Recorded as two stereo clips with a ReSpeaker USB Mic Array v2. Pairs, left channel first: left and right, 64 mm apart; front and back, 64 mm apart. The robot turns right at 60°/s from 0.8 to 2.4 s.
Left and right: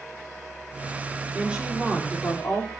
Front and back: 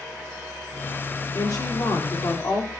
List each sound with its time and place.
1.3 s a woman speaking: 30° right, 3.5 m; by 2.7 s 35° left, 3.5 m